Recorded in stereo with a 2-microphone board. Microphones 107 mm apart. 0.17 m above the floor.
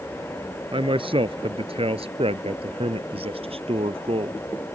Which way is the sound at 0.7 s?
55° right (ahead or behind).